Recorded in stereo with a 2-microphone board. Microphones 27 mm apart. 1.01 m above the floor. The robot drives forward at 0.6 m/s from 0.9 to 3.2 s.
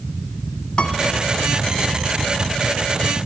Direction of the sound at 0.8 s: 45° left (ahead or behind).